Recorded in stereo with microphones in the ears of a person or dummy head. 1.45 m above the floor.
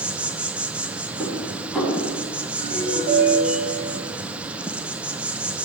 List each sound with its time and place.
0.0 s an insect: 10° right (ahead or behind), 0.9 m
1.2 s dishes clattering: centre (ahead or behind), 8.5 m
2.6 s a ringtone: 55° right (ahead or behind), 6.5 m